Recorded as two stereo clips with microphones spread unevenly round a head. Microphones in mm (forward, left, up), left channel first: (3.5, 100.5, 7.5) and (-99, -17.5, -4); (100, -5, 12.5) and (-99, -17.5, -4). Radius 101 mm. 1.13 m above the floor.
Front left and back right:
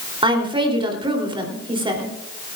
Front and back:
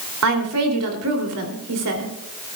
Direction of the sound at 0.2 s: 170° left.